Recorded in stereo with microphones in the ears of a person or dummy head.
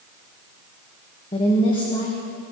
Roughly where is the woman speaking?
Left.